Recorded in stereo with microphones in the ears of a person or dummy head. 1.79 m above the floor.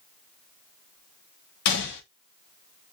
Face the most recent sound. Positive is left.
turn(degrees=55)  # may be behind; listen again after turning